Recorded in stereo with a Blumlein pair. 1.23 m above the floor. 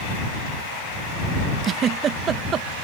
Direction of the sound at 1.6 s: 25° right.